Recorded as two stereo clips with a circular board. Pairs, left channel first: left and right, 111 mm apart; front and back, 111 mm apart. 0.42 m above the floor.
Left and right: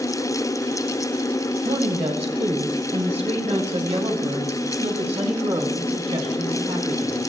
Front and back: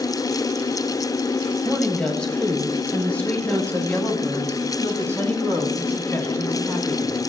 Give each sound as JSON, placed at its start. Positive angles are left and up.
{"t": 1.6, "sound": "a woman speaking", "azimuth_deg": -85, "distance_m": 2.5}